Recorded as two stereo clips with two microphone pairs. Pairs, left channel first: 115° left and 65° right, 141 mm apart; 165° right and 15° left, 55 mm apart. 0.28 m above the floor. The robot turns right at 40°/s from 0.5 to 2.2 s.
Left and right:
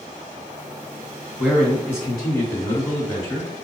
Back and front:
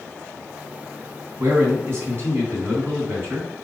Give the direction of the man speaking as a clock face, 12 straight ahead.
11 o'clock.